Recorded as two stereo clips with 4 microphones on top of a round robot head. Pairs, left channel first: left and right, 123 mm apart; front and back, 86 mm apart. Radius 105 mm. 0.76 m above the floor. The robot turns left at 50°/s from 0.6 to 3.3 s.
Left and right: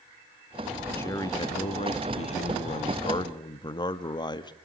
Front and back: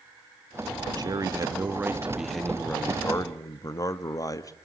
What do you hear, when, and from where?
1.0 s a man speaking: 160° left, 1.6 m; by 4.5 s 45° left, 1.6 m